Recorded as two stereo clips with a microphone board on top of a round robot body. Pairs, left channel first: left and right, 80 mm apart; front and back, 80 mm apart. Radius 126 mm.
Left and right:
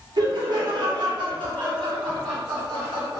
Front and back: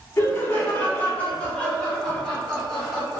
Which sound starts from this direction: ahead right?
Laughter, at 0.2 s.